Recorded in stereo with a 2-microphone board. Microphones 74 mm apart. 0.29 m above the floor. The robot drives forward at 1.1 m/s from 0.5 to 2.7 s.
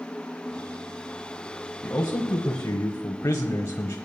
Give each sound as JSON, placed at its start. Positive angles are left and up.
{"t": 1.8, "sound": "a man speaking", "side_deg": 30, "distance_m": 1.4}